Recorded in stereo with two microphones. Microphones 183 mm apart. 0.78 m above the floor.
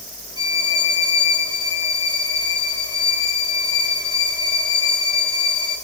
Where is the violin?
25° right (ahead or behind), 2.5 m.